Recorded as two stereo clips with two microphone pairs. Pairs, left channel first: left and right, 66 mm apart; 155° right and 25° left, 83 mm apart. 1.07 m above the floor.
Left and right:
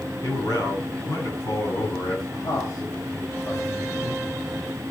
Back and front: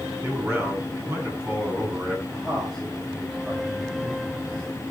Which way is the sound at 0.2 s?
85° left.